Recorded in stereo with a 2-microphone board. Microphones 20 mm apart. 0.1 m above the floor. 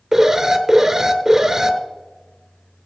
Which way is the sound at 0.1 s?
20° right (ahead or behind).